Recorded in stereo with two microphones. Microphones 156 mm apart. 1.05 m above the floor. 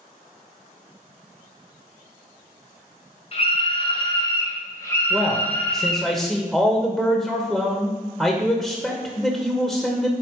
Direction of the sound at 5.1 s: Centre (ahead or behind).